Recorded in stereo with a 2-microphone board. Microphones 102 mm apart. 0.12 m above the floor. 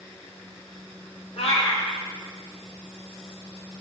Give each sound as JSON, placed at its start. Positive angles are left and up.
{"t": 1.4, "sound": "a cat meowing", "side_deg": 70, "distance_m": 0.9}